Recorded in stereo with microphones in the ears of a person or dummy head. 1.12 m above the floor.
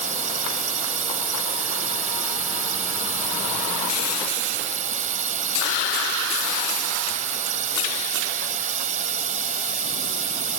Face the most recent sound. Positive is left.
turn(degrees=-45)  # may be behind; listen again after turning